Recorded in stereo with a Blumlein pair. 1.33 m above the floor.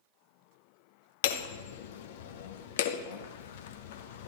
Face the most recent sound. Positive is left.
turn(degrees=55)